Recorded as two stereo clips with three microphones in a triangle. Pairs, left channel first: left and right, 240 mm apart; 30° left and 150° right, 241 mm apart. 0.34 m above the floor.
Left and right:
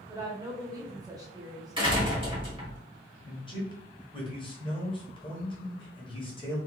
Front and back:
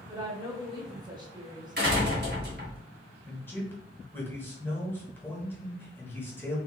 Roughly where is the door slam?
Behind right.